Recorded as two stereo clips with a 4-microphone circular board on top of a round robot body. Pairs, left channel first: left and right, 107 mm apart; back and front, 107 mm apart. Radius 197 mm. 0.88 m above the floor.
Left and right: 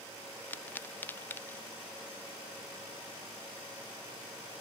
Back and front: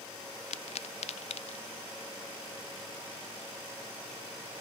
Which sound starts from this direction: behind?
A pop, at 0.5 s.